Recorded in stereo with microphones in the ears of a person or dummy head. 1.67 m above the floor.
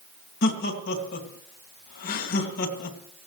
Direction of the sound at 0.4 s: 55° left (ahead or behind).